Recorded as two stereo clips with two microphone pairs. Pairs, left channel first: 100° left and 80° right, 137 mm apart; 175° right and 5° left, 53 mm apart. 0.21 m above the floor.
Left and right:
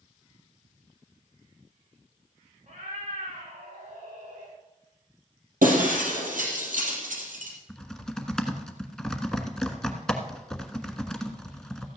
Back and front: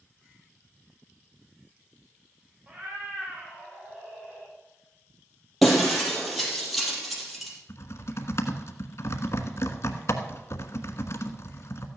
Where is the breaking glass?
85° right, 4 m.